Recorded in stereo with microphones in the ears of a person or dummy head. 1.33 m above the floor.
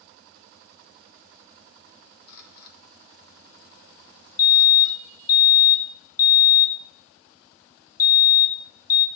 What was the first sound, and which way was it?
A camera shutter, 60° left (ahead or behind).